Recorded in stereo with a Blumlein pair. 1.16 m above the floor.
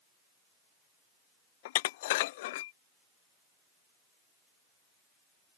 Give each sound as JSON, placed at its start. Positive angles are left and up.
{"t": 1.6, "sound": "dishes clattering", "azimuth_deg": 50}